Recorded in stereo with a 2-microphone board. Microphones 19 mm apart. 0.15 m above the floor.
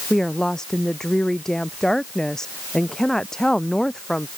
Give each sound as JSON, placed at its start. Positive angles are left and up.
{"t": 0.1, "sound": "a woman speaking", "side_deg": 25}